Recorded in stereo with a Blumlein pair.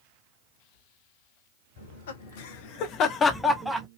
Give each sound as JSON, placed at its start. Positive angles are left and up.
{"t": 1.8, "sound": "laughter", "azimuth_deg": 65, "distance_m": 1.6}